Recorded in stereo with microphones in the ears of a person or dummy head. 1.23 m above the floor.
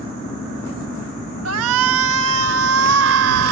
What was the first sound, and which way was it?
A shout, 90° right.